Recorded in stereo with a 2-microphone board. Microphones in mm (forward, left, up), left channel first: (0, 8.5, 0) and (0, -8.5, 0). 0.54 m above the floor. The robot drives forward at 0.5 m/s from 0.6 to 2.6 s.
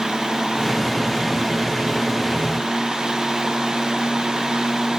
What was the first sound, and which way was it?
Only background noise.